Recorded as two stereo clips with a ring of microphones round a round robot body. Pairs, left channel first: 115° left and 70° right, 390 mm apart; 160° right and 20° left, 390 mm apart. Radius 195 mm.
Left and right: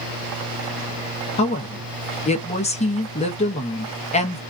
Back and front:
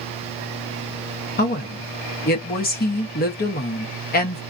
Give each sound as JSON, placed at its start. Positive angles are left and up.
{"t": 1.4, "sound": "a woman speaking", "azimuth_deg": 165, "distance_m": 0.7}